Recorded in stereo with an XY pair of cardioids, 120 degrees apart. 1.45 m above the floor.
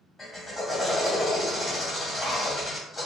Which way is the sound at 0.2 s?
30° left.